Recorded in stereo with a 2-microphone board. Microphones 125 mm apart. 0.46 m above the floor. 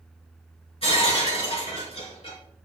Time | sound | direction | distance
0.8 | breaking glass | 50° left (ahead or behind) | 4 m